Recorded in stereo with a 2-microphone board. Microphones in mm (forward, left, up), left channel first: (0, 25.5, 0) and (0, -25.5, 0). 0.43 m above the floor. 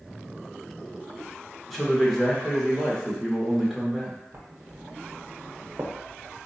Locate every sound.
1.7 s a man speaking: centre (ahead or behind), 0.8 m
4.3 s writing: 50° right (ahead or behind), 0.7 m